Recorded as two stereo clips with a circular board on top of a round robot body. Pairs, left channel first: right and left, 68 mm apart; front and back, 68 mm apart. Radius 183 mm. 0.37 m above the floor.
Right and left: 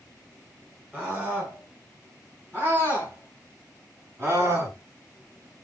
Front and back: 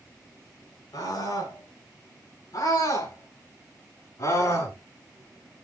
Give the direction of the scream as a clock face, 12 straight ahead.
11 o'clock.